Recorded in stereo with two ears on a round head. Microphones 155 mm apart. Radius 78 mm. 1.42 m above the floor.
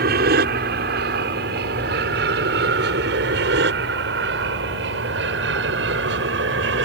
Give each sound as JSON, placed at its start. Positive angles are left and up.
{"t": 0.0, "sound": "an aircraft", "side_deg": -60}